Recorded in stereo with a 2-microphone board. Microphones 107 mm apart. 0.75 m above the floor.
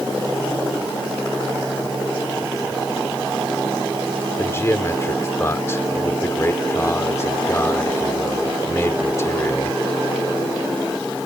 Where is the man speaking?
25° left (ahead or behind).